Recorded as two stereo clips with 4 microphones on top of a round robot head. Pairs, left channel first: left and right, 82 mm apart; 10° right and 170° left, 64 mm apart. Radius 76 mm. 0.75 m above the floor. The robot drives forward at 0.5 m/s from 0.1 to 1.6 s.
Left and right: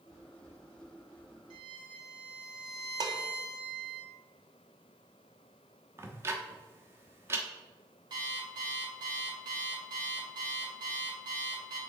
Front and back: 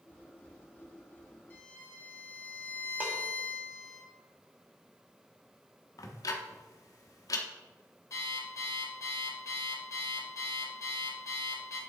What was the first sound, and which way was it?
A violin, 80° right.